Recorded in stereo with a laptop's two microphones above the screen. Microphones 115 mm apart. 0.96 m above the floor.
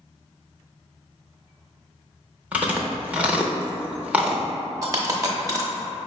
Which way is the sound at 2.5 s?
10° right (ahead or behind).